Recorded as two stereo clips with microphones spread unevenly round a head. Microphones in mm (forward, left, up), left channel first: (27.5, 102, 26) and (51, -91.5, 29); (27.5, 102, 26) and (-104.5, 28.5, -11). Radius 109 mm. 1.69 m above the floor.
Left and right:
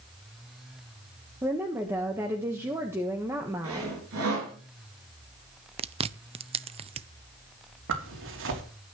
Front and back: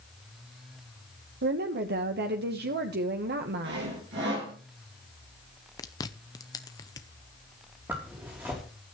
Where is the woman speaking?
160° right, 1.3 m.